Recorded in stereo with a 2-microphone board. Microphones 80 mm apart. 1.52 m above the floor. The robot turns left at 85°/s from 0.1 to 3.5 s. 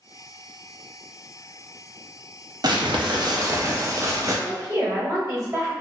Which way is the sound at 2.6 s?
65° right.